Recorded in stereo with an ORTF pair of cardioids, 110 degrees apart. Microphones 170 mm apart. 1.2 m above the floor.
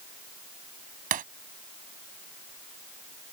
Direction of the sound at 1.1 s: 55° right.